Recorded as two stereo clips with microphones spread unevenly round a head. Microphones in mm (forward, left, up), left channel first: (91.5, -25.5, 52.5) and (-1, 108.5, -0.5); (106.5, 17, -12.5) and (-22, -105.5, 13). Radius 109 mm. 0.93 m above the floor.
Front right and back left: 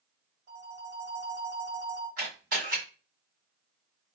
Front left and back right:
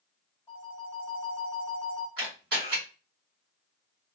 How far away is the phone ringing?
About 1.2 m.